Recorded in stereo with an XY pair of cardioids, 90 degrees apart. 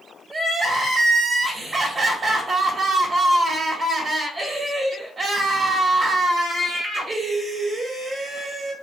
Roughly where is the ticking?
I don't hear ticking.